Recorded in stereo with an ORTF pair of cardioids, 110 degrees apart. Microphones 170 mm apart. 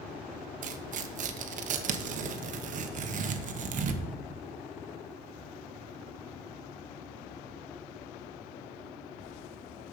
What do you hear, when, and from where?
0.6 s tearing paper: 50° right, 1.1 m